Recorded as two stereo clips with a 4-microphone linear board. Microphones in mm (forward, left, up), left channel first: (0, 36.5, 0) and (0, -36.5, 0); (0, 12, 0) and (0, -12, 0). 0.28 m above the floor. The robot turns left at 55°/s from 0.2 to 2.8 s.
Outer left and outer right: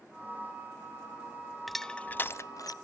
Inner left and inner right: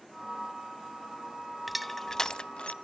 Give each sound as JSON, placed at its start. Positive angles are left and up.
{"t": 1.7, "sound": "crushing", "side_deg": 0, "distance_m": 0.5}